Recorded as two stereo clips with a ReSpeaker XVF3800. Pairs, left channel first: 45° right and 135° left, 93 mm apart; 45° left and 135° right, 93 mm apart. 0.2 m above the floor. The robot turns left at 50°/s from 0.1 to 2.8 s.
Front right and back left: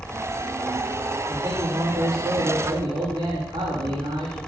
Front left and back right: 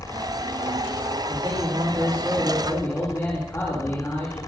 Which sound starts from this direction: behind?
A man speaking, at 1.3 s.